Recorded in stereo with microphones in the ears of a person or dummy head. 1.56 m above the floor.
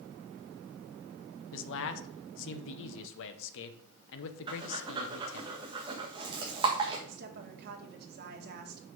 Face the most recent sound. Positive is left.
turn(degrees=-55)  # may be behind; listen again after turning